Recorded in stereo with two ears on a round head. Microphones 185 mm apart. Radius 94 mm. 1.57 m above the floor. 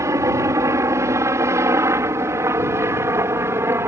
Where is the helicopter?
15° right (ahead or behind); by 3.9 s 10° right (ahead or behind).